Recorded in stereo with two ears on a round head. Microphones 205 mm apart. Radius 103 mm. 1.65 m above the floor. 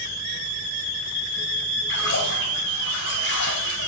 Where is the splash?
50° left (ahead or behind), 4.5 m.